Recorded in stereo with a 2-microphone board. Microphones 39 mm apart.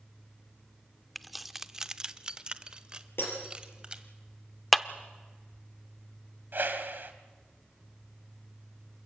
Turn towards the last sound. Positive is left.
turn(degrees=-65)  # may be behind; listen again after turning